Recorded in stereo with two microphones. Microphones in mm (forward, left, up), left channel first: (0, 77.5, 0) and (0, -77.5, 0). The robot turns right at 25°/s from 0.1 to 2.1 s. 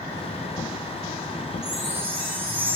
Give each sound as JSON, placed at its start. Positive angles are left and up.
{"t": 1.6, "sound": "a chime", "side_deg": -25, "distance_m": 6.5}